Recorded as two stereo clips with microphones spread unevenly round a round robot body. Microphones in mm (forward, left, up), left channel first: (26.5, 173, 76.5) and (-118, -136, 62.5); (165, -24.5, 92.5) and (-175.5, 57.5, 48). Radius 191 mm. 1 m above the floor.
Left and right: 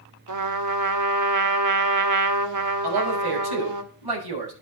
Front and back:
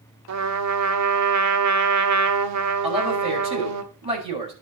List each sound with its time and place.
0.3 s a trumpet: 150° right, 1.6 m
2.8 s a man speaking: 120° right, 6.5 m